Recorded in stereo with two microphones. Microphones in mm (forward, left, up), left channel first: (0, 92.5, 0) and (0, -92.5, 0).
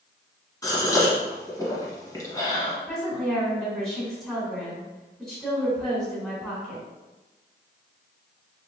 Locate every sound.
0.6 s a gasp: 20° left (ahead or behind), 1.0 m
2.9 s a woman speaking: centre (ahead or behind), 1.5 m